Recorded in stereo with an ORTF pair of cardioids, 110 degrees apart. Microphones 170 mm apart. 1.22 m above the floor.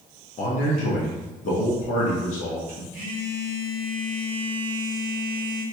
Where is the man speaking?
45° left, 0.9 m.